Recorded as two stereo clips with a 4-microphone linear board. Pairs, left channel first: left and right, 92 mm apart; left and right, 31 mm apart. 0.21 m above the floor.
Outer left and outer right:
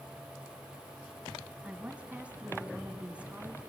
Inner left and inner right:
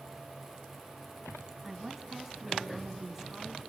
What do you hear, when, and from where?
1.6 s a woman speaking: 15° right (ahead or behind), 1.7 m